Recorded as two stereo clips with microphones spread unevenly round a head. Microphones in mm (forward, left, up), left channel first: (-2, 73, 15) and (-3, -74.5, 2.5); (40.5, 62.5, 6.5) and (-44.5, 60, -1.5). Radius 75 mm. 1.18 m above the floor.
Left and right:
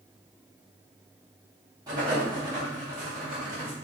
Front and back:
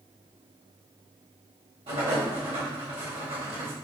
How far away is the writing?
About 1.5 m.